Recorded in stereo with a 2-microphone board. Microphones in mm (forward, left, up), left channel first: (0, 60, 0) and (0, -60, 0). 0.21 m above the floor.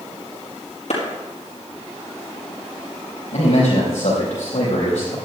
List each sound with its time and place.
0.9 s a clap: 70° left (ahead or behind), 5.5 m
3.3 s a man speaking: 80° left, 5 m